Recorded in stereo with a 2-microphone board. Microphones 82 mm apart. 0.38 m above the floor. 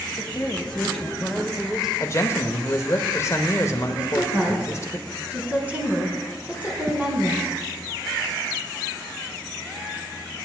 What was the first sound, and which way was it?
A woman speaking, 20° left (ahead or behind).